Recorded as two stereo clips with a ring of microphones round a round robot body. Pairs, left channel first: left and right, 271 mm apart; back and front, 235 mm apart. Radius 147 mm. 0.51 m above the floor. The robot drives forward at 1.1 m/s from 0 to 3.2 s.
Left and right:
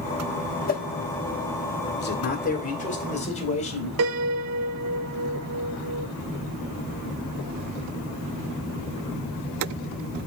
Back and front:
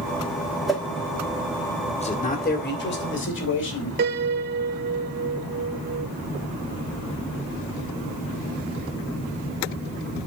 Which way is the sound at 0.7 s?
85° left.